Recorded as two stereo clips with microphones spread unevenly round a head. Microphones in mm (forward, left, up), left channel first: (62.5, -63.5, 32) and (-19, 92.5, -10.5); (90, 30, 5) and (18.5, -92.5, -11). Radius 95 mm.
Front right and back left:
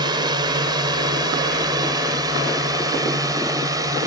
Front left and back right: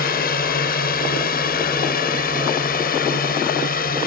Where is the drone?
50° left; by 4.1 s 45° left.